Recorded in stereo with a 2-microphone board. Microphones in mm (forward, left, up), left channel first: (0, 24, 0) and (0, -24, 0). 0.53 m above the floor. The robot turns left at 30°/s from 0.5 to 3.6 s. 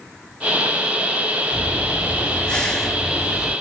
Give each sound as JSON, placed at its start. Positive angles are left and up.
{"t": 1.5, "sound": "breathing", "azimuth_deg": 50, "distance_m": 2.0}